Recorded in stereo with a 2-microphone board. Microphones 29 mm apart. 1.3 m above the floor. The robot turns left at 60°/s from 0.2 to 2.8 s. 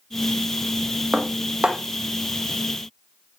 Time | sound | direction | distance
1.1 | dishes clattering | 45° right (ahead or behind) | 0.7 m